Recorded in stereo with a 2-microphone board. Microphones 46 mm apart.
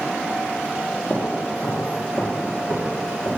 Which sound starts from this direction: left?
Footsteps, at 1.1 s.